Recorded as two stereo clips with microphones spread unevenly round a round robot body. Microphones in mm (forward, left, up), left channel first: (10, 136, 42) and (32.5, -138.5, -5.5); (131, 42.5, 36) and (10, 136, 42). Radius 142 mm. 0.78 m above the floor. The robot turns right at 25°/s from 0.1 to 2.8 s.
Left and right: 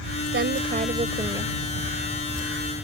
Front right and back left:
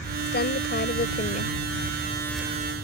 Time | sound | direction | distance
0.3 | a woman speaking | 35° right | ?